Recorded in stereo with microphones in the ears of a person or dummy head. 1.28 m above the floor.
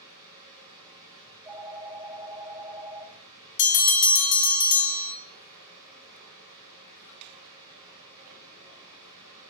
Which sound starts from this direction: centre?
A phone ringing, at 1.3 s.